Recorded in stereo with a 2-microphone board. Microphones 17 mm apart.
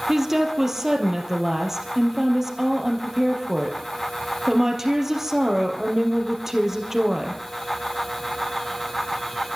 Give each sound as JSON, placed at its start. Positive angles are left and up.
{"t": 0.1, "sound": "a woman speaking", "side_deg": -25, "distance_m": 4.0}